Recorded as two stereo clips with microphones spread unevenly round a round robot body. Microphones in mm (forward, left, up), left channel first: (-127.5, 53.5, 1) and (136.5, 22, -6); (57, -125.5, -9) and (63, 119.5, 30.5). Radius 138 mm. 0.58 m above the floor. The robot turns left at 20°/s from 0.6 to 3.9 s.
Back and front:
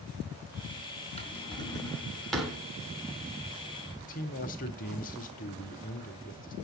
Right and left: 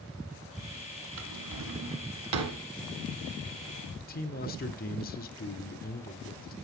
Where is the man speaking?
130° right, 1.6 m.